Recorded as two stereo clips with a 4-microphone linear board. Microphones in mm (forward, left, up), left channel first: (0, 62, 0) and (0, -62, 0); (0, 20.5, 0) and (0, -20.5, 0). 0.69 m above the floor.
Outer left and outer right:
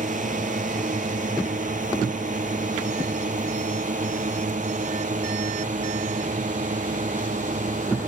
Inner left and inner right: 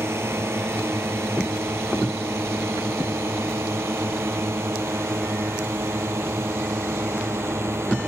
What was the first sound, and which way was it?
A drone, 85° right.